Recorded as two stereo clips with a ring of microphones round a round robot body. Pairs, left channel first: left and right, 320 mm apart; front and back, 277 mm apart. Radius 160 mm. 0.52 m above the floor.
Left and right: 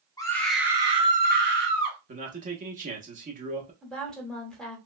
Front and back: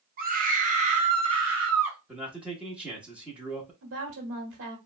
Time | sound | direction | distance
0.2 | a scream | 160° left | 0.9 m
2.1 | a man speaking | 100° right | 0.9 m
3.8 | a woman speaking | straight behind | 1.2 m